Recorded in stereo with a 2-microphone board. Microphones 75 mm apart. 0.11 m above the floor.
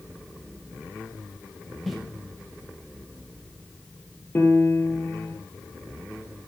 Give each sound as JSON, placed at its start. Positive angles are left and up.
{"t": 1.9, "sound": "footsteps", "side_deg": 0, "distance_m": 2.5}
{"t": 4.3, "sound": "a piano", "side_deg": 30, "distance_m": 1.8}